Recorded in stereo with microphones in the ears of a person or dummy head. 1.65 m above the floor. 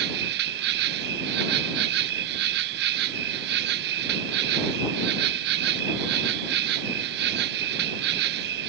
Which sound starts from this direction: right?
An insect, at 0.0 s.